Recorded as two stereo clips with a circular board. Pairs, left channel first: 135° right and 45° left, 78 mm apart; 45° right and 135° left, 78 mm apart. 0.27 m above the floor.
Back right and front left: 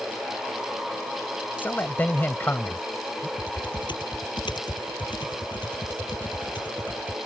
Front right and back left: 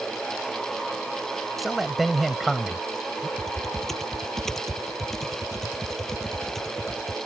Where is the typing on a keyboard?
130° right.